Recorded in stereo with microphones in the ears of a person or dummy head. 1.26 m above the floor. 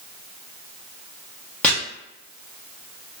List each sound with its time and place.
1.6 s chopping: 5° left (ahead or behind), 0.7 m